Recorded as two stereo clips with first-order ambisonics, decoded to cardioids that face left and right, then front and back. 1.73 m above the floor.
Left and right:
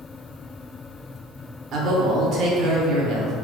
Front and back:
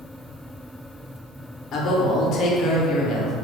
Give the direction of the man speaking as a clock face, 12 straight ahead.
2 o'clock.